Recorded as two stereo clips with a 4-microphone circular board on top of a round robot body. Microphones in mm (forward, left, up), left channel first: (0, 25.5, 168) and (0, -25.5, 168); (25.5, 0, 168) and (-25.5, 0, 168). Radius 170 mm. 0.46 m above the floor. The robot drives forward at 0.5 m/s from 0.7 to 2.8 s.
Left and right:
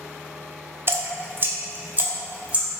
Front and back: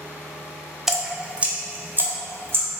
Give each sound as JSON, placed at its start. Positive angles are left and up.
{"t": 0.9, "sound": "dripping", "azimuth_deg": -100, "distance_m": 0.9}